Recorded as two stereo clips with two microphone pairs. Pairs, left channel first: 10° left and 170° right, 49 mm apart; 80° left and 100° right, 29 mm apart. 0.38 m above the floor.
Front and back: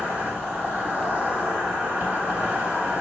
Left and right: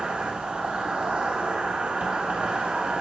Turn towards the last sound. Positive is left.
turn(degrees=-110)